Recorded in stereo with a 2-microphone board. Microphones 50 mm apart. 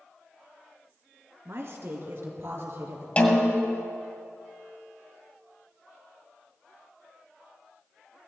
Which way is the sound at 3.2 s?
25° left (ahead or behind).